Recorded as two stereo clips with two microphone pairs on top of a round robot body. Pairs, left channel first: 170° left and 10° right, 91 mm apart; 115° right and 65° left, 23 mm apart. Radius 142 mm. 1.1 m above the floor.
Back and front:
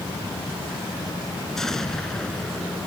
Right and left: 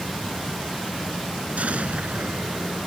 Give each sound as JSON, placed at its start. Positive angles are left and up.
{"t": 1.6, "sound": "an explosion", "azimuth_deg": 85}